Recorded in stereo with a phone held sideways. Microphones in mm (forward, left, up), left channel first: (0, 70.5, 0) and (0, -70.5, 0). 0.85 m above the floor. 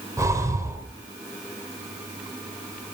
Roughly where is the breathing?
Right.